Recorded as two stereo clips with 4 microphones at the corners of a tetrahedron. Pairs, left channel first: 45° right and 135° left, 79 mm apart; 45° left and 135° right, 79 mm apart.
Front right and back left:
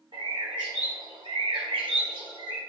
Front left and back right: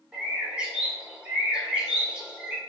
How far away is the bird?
About 1.0 m.